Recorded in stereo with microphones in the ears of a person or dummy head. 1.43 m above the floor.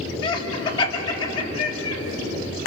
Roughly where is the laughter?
Left.